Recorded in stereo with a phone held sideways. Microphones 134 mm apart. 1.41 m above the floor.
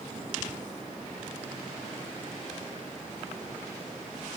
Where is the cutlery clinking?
I don't hear cutlery clinking.